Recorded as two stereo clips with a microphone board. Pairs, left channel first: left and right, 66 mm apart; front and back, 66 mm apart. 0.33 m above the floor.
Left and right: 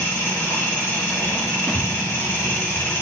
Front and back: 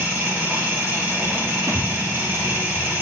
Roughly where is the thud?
Behind.